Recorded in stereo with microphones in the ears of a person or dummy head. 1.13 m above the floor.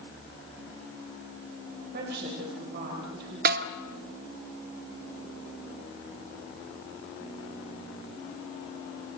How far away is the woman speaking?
About 4 m.